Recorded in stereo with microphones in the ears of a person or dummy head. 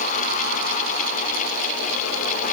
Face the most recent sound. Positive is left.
No sound to turn to.